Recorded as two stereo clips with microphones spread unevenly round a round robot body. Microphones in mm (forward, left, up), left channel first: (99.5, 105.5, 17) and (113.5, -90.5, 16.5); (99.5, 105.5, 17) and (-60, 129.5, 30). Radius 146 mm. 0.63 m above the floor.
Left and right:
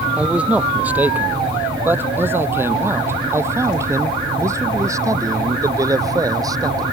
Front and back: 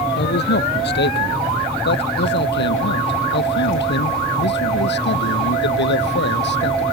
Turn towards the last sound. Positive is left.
turn(degrees=-15)